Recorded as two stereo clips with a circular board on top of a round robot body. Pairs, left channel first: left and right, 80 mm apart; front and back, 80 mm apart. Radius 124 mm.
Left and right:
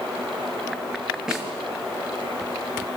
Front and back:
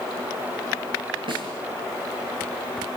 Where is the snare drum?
170° right, 7.5 m.